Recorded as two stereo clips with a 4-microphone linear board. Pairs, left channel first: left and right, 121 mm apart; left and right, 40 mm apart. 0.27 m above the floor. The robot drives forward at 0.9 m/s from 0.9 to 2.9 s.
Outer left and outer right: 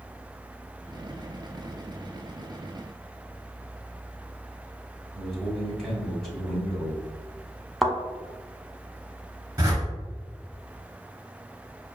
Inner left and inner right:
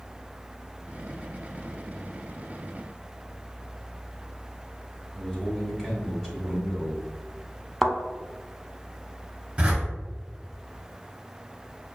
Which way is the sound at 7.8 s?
Centre (ahead or behind).